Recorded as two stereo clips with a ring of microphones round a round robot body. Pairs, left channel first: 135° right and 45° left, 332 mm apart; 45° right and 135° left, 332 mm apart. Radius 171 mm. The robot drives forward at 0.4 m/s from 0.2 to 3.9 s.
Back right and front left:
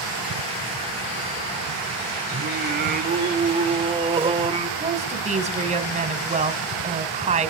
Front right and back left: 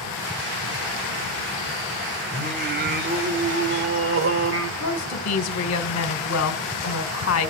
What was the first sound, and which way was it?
Singing, 80° left.